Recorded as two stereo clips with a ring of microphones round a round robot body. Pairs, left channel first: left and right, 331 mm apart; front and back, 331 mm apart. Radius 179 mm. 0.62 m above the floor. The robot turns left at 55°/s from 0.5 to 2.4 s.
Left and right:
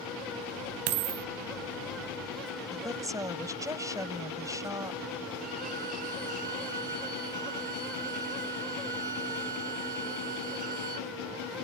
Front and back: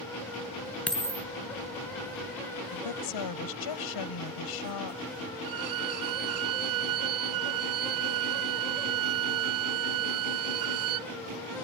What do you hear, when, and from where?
0.9 s a dropped coin: 85° right; by 1.2 s 105° right
2.7 s a woman speaking: 10° right
5.4 s a violin: 155° right